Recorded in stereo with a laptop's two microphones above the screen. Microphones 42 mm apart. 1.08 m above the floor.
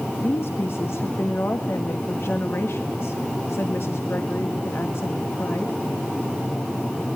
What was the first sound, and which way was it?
A woman speaking, 80° left.